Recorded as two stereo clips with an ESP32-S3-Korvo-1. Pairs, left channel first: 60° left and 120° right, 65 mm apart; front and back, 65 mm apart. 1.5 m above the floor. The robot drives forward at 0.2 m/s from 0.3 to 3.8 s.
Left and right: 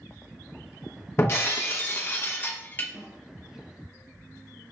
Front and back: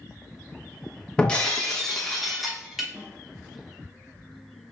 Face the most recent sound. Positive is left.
turn(degrees=-135)